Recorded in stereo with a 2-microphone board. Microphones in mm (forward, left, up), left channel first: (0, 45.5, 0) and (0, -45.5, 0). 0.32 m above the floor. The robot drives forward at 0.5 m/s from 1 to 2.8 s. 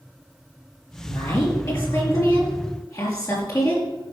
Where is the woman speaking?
35° left (ahead or behind), 5.5 m; by 3.8 s 40° left (ahead or behind), 5 m.